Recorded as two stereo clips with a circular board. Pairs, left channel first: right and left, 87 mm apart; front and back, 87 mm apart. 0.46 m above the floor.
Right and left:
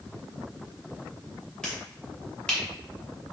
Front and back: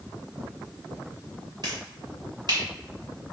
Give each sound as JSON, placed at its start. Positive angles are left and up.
{"t": 1.6, "sound": "a finger snap", "azimuth_deg": -170, "distance_m": 1.9}